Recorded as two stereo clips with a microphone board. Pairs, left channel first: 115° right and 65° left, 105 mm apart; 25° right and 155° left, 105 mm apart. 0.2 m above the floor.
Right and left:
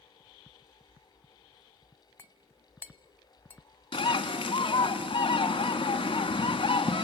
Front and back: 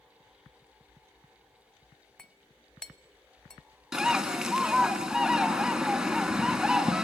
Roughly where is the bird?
Behind right.